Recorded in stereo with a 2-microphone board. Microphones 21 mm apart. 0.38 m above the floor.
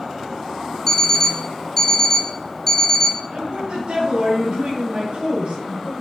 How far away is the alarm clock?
About 2.5 m.